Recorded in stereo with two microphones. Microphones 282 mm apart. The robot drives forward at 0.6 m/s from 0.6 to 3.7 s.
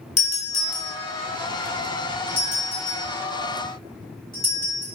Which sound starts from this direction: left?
A doorbell, at 0.2 s.